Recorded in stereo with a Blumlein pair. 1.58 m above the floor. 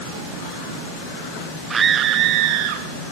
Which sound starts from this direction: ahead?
A scream, at 1.7 s.